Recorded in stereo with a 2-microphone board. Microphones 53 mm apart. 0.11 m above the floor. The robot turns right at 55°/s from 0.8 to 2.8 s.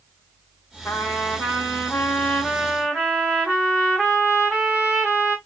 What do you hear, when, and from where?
0.8 s a trumpet: 85° left, 3 m; by 5.4 s 170° right, 3 m